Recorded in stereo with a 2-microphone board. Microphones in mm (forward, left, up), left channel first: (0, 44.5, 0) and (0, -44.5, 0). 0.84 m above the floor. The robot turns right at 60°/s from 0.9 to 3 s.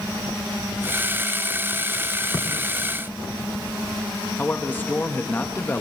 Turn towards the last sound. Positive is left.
turn(degrees=20)  # may be behind; listen again after turning